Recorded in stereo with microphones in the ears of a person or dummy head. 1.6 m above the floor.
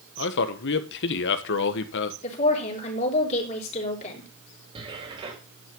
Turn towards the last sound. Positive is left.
turn(degrees=-35)  # may be behind; listen again after turning